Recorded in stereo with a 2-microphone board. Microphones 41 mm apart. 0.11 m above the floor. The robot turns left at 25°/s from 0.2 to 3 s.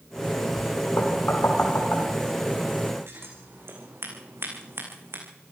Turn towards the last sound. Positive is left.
turn(degrees=-75)  # may be behind; listen again after turning